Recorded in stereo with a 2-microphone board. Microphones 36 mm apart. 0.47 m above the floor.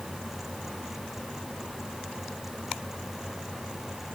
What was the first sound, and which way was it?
Only background noise.